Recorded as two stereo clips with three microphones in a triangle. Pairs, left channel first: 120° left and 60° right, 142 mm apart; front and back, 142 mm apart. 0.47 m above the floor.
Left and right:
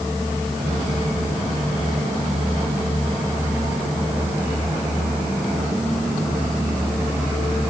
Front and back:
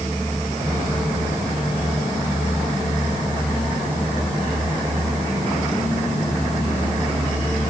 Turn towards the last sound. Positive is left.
No sound to turn to.